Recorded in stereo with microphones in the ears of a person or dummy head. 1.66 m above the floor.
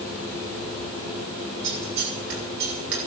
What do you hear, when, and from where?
1.6 s scissors: 55° right (ahead or behind), 7.5 m